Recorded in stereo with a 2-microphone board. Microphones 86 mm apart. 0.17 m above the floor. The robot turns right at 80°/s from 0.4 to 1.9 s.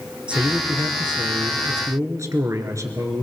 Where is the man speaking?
165° right, 3 m; by 3.2 s 45° right, 3 m.